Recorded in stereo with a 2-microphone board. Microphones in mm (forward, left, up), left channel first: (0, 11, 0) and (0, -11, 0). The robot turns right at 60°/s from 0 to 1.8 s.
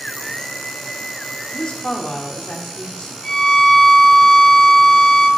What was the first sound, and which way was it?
A woman speaking, 40° left (ahead or behind).